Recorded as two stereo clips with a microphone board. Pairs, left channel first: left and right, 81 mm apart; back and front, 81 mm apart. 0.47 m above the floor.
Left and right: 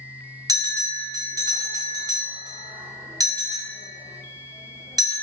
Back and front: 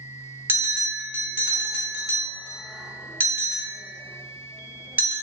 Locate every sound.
0.5 s a bell: 60° right, 0.8 m